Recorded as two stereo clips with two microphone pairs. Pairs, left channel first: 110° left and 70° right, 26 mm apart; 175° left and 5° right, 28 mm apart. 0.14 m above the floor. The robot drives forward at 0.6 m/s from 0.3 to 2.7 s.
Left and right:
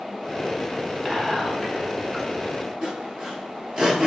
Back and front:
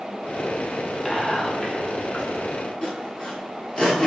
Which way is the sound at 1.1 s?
145° right.